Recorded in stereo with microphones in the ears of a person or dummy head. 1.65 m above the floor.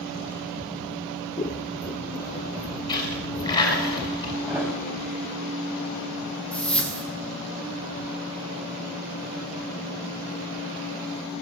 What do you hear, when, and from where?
1.4 s scissors: 30° left (ahead or behind), 0.6 m
2.9 s a dropped coin: 25° left (ahead or behind), 5 m
4.5 s a thud: 10° right (ahead or behind), 5 m
6.5 s a whoosh: 5° left (ahead or behind), 2.5 m